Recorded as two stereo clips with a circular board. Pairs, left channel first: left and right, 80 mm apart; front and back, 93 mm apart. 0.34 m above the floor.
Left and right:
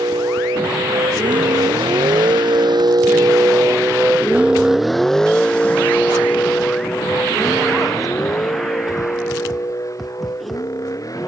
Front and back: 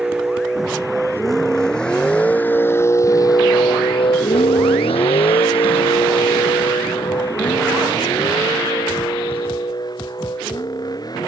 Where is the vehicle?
95° right; by 11.3 s 45° left.